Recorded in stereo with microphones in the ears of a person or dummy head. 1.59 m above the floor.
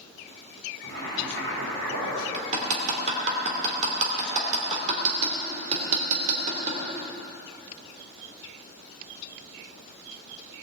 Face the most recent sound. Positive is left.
turn(degrees=-45)  # may be behind; listen again after turning